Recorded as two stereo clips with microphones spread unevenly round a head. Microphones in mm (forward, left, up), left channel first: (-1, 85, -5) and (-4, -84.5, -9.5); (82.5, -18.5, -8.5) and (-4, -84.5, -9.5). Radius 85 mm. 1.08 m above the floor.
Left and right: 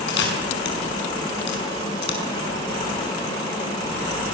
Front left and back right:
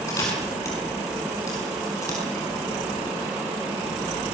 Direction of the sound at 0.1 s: 110° left.